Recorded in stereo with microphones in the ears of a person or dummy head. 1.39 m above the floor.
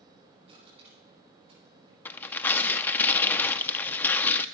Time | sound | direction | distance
0.5 | crushing | 30° right (ahead or behind) | 8.5 m
2.0 | tearing paper | 10° left (ahead or behind) | 0.5 m